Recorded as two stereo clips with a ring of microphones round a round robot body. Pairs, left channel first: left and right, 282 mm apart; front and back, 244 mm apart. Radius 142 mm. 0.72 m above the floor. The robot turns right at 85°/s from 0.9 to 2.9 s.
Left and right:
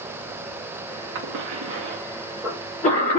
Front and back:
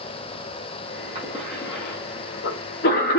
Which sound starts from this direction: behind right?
A cough, at 1.1 s.